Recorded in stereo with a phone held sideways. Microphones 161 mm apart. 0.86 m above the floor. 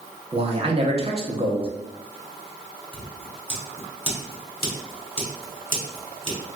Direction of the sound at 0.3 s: 40° right (ahead or behind).